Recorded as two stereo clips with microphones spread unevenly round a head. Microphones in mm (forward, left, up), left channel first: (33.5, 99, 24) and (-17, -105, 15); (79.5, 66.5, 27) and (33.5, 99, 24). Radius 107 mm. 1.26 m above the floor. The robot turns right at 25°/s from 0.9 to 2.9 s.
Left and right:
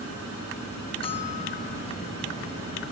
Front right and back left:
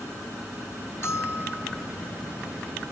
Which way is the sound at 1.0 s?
10° left.